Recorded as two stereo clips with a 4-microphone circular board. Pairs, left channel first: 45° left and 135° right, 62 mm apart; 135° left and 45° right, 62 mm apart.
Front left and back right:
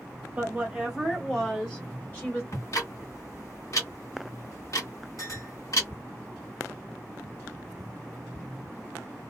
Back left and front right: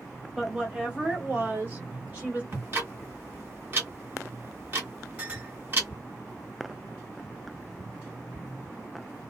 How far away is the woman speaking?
About 1.3 m.